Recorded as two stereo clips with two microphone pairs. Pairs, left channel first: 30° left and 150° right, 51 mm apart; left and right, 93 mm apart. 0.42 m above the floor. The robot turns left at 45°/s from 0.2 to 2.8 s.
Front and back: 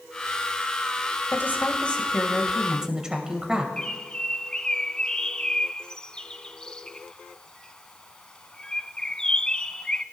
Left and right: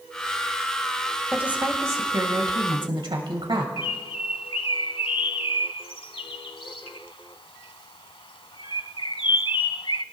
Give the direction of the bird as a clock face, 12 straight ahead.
9 o'clock.